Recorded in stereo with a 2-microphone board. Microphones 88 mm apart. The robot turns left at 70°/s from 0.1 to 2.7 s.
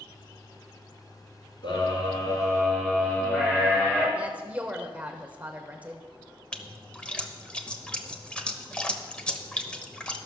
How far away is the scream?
About 4.5 m.